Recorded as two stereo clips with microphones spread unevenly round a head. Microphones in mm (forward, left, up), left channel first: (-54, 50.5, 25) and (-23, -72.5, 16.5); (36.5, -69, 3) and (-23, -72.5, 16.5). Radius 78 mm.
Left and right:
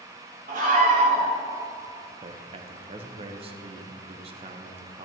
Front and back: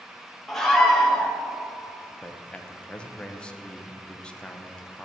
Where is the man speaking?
55° right, 0.9 m.